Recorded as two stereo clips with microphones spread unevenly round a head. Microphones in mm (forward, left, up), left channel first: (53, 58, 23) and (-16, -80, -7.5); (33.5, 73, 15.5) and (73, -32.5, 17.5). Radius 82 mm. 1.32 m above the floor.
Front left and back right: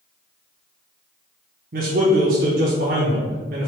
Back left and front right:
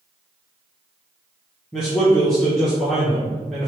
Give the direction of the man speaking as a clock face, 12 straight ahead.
5 o'clock.